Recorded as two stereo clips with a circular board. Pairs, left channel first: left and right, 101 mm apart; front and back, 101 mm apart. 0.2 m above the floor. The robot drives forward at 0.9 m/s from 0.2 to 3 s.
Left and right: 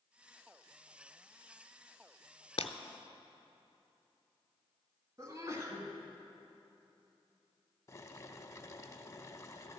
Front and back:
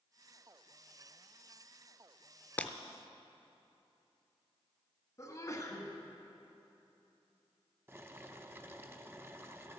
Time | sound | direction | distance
2.6 | breaking glass | 70° left | 0.5 m
5.2 | a sneeze | 45° right | 1.5 m
7.9 | boiling | 130° left | 0.6 m